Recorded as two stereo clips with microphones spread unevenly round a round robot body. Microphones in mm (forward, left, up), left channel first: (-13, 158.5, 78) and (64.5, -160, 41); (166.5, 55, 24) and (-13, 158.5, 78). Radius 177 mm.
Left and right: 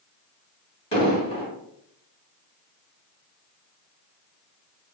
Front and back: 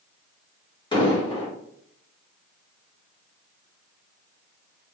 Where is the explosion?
30° left, 1.9 m.